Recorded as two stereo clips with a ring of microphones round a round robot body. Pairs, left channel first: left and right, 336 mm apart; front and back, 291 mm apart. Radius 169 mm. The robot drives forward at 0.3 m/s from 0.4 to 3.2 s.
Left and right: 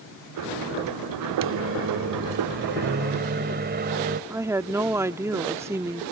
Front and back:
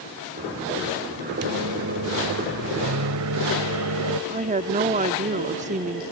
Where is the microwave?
140° right; by 4.2 s 150° right.